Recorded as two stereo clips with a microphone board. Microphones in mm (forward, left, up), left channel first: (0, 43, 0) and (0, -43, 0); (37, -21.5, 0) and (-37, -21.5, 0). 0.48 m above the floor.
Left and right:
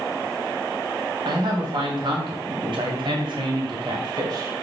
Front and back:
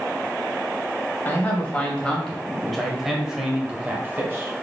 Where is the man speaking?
70° right, 2.5 m; by 4.5 s 125° right, 1.9 m.